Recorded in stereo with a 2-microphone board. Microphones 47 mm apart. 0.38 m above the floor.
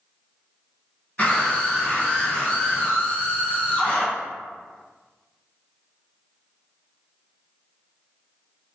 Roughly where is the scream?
Left.